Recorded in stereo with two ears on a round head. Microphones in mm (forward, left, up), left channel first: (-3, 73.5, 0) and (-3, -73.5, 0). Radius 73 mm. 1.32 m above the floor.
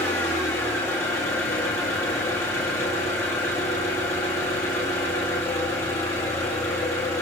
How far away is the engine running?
About 1.7 m.